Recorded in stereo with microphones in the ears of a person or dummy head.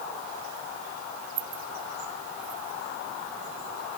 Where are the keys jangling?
20° right (ahead or behind); by 2.8 s 5° right (ahead or behind).